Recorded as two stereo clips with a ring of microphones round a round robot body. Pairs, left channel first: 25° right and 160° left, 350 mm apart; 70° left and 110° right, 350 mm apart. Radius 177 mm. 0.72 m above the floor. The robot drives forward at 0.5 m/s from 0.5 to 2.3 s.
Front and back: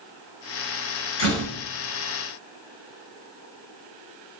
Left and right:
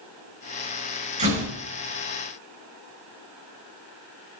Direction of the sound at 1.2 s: 40° right.